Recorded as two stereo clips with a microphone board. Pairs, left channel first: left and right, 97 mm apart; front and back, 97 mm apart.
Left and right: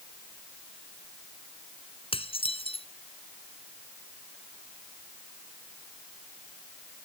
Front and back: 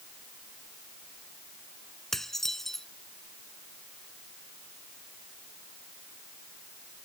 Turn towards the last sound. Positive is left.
turn(degrees=85)